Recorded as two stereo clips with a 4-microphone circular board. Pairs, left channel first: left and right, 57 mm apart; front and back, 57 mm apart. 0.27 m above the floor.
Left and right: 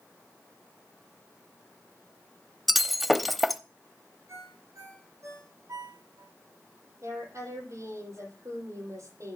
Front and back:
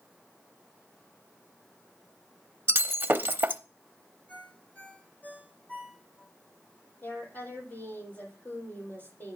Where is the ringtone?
60° right, 8.5 m.